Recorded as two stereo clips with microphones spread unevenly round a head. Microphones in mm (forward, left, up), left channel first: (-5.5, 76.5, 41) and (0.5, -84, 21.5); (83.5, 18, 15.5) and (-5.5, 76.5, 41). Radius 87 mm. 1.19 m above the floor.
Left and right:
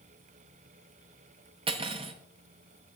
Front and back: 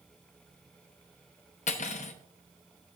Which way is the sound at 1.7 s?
25° right.